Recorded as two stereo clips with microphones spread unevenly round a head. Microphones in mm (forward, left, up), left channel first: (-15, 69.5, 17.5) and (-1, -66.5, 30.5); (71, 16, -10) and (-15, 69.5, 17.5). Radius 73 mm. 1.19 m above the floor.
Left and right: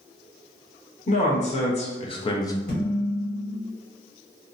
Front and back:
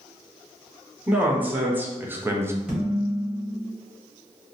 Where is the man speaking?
70° left, 1.1 m; by 2.6 s 80° left, 0.5 m.